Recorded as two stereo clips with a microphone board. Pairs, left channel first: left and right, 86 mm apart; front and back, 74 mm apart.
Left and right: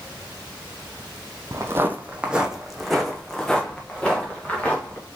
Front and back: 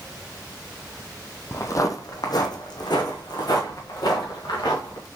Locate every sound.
1.5 s footsteps: 45° right, 0.6 m; by 5.1 s 15° left, 2 m